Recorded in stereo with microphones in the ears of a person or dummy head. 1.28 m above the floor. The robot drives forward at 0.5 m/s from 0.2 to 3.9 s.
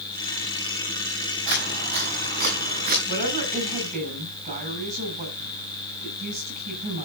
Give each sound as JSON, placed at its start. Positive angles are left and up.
{"t": 1.5, "sound": "footsteps", "side_deg": -55, "distance_m": 7.5}
{"t": 3.1, "sound": "a woman speaking", "side_deg": -45, "distance_m": 7.0}